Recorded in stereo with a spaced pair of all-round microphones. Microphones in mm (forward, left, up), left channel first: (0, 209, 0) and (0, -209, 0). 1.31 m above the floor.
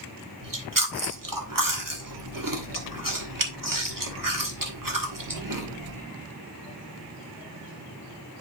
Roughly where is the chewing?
Right.